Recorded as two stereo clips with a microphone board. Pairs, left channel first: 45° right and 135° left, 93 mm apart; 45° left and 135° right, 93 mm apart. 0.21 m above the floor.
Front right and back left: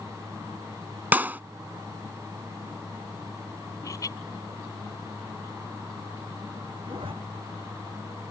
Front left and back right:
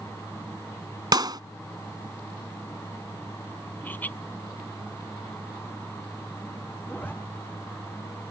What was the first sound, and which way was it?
A clap, 160° right.